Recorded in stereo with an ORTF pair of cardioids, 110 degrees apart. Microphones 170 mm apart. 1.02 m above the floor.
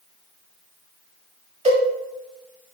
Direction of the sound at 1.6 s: 45° right.